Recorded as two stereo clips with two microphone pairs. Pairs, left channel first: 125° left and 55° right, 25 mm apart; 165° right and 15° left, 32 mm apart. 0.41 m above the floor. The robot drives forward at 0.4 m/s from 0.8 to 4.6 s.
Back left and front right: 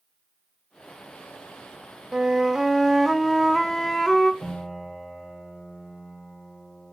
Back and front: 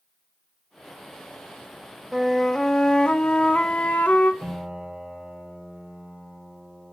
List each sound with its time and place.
2.1 s a flute: 70° right, 0.6 m; by 4.3 s 165° right, 1.0 m
4.4 s a piano: 75° left, 2 m